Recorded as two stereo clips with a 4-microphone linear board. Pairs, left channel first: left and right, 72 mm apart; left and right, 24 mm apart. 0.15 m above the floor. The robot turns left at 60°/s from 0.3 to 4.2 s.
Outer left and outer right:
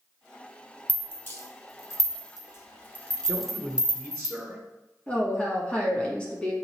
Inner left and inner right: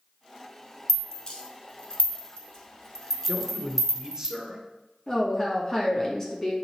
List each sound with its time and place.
0.9 s a rattle: 20° left (ahead or behind), 1.1 m; by 4.3 s 30° right (ahead or behind), 1.1 m
3.3 s a man speaking: 20° right (ahead or behind), 1.1 m; by 4.6 s 5° right (ahead or behind), 1.1 m
5.1 s a woman speaking: 15° left (ahead or behind), 1.1 m